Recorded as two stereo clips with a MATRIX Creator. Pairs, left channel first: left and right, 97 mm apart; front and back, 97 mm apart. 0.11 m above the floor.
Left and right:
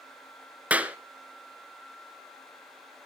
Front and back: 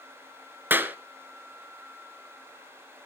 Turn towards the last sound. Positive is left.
turn(degrees=-145)